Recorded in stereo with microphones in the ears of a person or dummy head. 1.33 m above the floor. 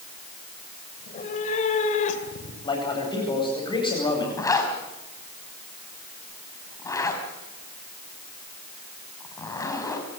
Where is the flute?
No flute in this recording.